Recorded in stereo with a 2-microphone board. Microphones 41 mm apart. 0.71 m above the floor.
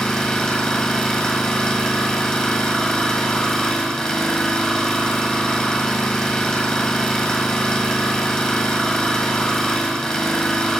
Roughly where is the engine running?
Centre.